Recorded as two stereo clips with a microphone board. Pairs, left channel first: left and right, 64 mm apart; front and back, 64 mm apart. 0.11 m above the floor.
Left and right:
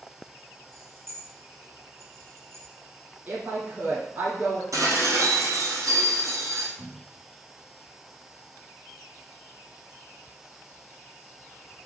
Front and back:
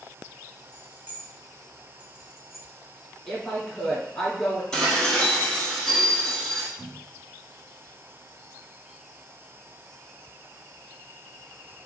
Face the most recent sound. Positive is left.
turn(degrees=-115)